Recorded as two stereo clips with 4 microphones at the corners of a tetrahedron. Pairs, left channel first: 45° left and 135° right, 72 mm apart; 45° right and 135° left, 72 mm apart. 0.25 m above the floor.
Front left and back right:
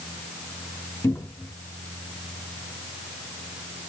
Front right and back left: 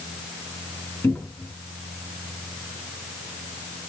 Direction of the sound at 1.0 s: 15° left.